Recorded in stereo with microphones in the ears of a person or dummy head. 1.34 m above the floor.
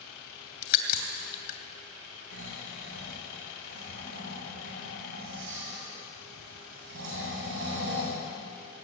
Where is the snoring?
75° right (ahead or behind), 7 m.